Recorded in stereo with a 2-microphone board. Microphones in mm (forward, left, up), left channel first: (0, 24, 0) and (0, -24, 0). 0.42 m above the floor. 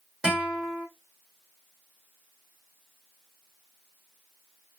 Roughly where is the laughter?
I don't hear laughter.